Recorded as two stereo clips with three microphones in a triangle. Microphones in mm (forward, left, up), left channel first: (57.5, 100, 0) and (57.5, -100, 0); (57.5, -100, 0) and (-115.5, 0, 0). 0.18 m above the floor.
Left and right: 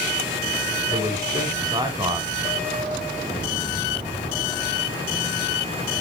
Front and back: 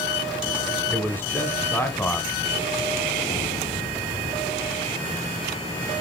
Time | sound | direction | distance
0.9 | a man speaking | 90° right | 1.0 m